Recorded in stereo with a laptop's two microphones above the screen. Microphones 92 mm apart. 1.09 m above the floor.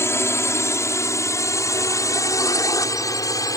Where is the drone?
30° left (ahead or behind); by 3.6 s 40° left (ahead or behind).